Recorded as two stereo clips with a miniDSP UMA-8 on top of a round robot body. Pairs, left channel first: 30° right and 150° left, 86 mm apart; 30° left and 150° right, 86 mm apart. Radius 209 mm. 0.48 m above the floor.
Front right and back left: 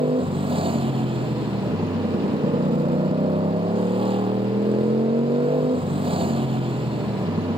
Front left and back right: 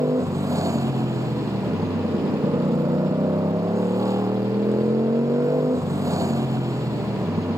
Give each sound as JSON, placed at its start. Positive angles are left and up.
{"t": 0.0, "sound": "a motorcycle", "azimuth_deg": 155}